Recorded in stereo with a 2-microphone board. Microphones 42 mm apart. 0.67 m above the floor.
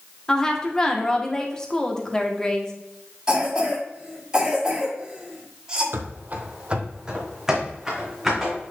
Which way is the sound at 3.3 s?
20° right (ahead or behind).